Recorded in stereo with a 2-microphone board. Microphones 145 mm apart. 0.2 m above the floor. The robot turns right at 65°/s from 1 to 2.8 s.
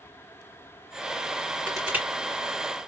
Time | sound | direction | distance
1.7 | crushing | 5° left (ahead or behind) | 2.5 m